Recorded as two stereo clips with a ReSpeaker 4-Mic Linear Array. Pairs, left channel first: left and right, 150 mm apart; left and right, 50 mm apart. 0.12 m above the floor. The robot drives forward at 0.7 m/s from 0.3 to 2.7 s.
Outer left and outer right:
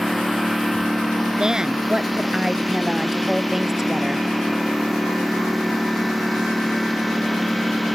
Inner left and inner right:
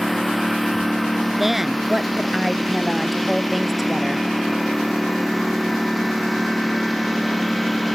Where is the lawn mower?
Centre (ahead or behind).